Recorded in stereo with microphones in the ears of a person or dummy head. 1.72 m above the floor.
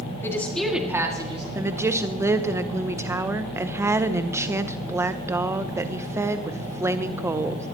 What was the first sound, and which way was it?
A woman speaking, 15° left (ahead or behind).